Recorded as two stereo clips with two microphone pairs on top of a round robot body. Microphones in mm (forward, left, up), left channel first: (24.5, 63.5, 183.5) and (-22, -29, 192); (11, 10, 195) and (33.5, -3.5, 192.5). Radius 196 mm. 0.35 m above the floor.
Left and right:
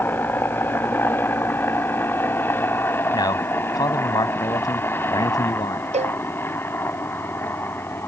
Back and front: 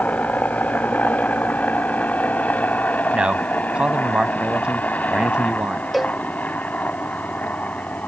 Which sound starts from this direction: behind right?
A cowbell, at 5.9 s.